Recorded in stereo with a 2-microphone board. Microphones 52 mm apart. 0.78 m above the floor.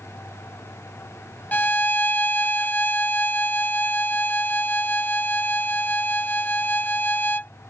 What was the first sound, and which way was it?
A violin, 35° left (ahead or behind).